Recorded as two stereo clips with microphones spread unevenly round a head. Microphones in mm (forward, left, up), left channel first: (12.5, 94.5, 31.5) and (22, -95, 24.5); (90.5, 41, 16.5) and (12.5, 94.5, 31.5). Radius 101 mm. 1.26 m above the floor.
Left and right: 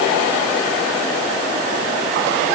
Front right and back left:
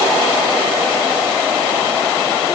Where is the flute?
I don't hear a flute.